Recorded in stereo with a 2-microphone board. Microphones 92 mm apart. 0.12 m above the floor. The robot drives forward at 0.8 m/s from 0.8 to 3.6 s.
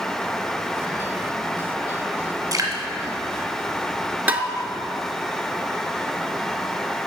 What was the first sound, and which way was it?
Dripping, 35° right (ahead or behind).